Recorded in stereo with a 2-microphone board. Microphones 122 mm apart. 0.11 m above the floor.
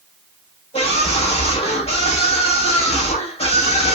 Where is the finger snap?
I don't hear a finger snap.